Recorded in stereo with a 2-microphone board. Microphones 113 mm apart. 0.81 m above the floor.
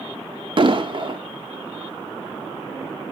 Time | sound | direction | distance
0.6 | an explosion | 45° right (ahead or behind) | 0.9 m